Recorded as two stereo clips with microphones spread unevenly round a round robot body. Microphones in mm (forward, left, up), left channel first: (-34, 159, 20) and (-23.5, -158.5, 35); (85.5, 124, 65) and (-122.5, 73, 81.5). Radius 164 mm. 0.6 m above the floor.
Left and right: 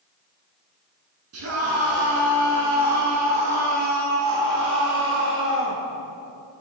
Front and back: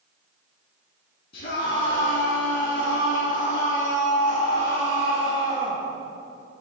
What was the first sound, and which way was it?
A scream, 40° right.